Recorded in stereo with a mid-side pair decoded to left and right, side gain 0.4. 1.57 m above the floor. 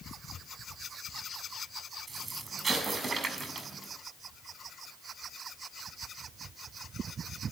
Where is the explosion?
45° right, 6 m.